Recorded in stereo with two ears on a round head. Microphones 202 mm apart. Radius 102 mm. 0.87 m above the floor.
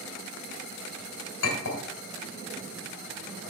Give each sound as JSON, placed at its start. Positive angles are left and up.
{"t": 1.4, "sound": "a clink", "side_deg": 85, "distance_m": 2.5}